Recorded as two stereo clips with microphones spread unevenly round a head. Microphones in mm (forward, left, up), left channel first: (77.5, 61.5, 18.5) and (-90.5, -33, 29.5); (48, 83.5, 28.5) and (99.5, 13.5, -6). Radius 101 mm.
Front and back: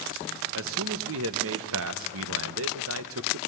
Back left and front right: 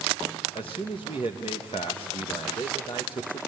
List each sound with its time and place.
0.6 s a man speaking: 170° right, 1.1 m